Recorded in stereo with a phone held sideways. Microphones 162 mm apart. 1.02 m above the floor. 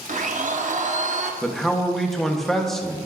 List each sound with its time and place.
0.1 s a blender: 50° right (ahead or behind), 0.7 m
1.4 s a man speaking: 5° left (ahead or behind), 0.9 m